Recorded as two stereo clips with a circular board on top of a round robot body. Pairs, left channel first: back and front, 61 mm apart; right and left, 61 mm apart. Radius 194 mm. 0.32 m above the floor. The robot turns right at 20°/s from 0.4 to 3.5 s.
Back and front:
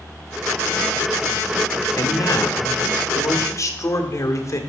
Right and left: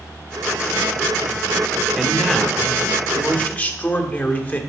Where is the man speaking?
Straight behind, 2 m; by 4.6 s 150° right, 2 m.